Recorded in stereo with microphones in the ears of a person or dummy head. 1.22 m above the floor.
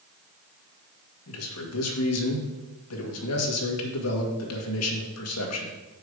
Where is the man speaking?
70° left (ahead or behind), 1.9 m.